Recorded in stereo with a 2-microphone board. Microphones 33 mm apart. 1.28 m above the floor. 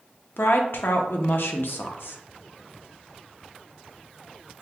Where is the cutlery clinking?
I don't hear cutlery clinking.